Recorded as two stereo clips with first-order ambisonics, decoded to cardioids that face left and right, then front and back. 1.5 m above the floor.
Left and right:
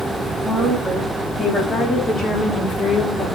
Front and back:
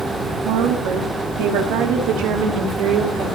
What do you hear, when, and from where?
0.5 s a woman speaking: straight behind, 2.5 m; by 3.4 s 145° left, 3 m